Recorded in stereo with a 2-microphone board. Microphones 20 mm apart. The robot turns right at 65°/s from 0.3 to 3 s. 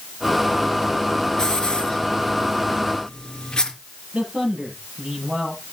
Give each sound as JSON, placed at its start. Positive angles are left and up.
{"t": 1.4, "sound": "a hiss", "side_deg": 40, "distance_m": 3.0}
{"t": 4.1, "sound": "a man speaking", "side_deg": -60, "distance_m": 8.5}